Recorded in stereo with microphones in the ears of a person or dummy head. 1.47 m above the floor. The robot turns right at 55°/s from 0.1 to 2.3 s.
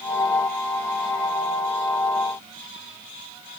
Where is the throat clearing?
I don't hear throat clearing.